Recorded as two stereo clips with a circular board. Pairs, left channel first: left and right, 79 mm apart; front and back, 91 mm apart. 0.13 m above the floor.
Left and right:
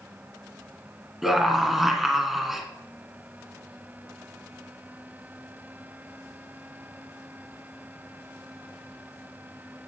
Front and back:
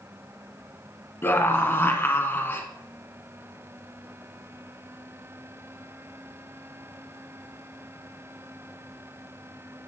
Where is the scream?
5° right, 1.3 m.